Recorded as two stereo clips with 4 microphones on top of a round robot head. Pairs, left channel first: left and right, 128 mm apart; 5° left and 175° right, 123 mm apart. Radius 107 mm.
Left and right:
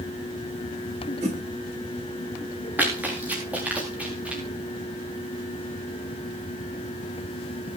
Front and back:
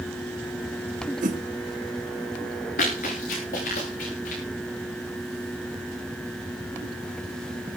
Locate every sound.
1.2 s a whoosh: 140° right, 4 m
2.8 s running footsteps: 15° right, 8.5 m; by 4.4 s 10° right, 9.5 m